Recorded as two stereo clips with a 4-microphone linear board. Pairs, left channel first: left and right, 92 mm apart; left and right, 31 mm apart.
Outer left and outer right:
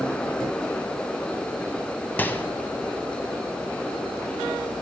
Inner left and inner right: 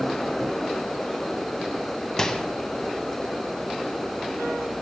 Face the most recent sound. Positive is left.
turn(degrees=20)  # may be behind; listen again after turning